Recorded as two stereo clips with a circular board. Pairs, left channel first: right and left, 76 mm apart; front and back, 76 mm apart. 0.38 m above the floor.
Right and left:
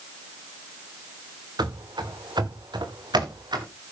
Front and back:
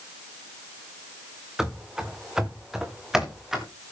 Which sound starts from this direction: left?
Running footsteps, at 1.6 s.